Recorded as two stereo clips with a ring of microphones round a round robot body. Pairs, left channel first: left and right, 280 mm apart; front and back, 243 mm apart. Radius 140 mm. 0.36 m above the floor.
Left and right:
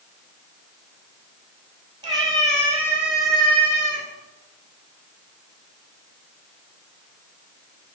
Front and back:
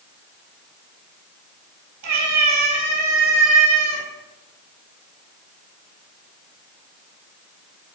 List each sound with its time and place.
2.0 s a cat meowing: 165° right, 3.5 m; by 4.0 s 160° left, 2.0 m